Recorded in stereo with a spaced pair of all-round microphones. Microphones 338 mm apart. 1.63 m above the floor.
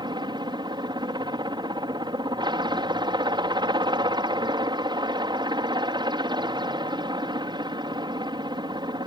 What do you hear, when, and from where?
0.0 s a helicopter: 15° right (ahead or behind)